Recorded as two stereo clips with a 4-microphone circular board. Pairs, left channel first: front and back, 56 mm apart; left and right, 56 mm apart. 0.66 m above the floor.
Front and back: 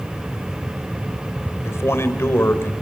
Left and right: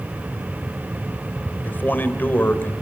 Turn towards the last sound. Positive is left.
turn(degrees=40)